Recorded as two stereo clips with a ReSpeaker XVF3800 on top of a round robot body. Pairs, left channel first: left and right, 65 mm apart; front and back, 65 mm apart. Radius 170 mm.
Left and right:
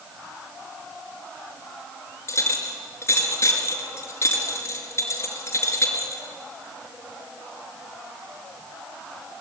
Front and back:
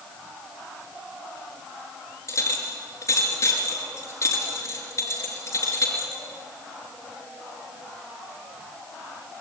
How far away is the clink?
About 5 m.